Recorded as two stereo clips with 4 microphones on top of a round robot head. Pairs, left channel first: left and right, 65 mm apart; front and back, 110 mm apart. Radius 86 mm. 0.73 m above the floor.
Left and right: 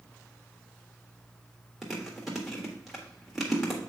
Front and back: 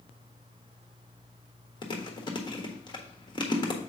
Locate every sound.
1.8 s chewing: 5° right, 1.4 m